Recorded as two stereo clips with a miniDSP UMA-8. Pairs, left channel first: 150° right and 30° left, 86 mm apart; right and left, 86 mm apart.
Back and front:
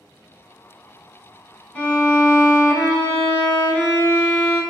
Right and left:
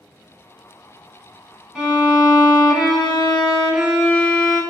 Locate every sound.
1.8 s a violin: 170° left, 0.8 m